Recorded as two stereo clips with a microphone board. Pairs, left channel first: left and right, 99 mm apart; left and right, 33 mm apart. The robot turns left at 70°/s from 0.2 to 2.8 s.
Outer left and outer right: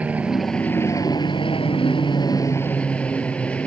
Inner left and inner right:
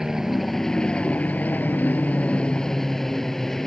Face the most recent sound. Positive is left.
turn(degrees=15)